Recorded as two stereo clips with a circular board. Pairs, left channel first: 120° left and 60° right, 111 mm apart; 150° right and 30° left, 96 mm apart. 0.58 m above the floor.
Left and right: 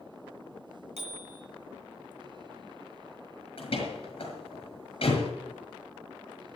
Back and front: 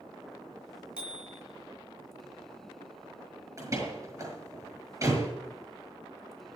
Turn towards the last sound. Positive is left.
turn(degrees=90)